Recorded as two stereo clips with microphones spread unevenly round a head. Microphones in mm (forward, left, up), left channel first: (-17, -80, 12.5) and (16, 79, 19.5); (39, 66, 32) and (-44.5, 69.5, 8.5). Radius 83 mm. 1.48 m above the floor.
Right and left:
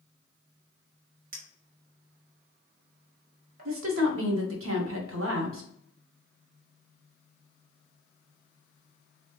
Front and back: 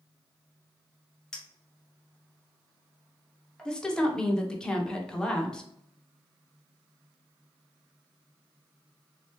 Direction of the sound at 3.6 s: 80° left.